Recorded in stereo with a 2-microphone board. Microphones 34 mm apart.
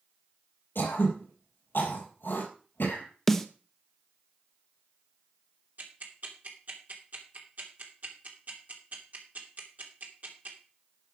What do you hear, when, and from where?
0.8 s throat clearing: 80° left, 5.5 m
3.3 s a snare drum: 10° left (ahead or behind), 1.0 m
5.8 s ticking: 55° right (ahead or behind), 2.5 m